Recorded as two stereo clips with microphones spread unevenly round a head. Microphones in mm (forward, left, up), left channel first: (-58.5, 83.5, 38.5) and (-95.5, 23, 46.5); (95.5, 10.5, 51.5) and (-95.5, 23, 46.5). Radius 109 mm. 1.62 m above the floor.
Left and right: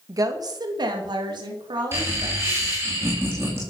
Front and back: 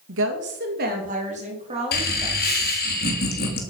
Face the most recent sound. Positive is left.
turn(degrees=-50)